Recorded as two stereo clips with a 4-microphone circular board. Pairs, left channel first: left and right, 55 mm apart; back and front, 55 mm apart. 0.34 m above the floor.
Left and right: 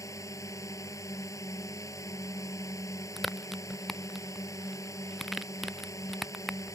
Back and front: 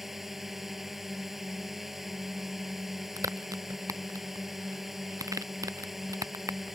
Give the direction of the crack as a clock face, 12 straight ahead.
12 o'clock.